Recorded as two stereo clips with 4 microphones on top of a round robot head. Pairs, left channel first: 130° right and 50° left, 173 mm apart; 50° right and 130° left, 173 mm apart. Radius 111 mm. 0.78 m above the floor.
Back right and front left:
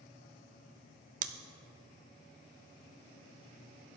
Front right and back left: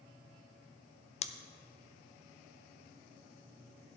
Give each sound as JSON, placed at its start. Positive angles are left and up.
{"t": 1.2, "sound": "scissors", "azimuth_deg": 5, "distance_m": 0.5}